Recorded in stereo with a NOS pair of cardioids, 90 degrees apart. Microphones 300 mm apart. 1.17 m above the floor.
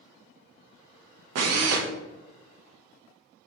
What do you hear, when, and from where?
1.4 s a drill: 55° right, 0.7 m